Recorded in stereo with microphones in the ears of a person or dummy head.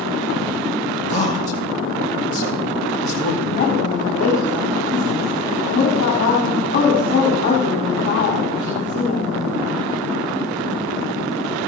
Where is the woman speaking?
35° left (ahead or behind), 3.5 m.